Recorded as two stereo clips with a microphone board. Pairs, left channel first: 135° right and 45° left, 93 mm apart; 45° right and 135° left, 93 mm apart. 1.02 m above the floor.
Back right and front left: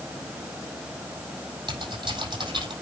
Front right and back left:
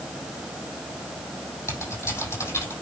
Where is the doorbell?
I don't hear a doorbell.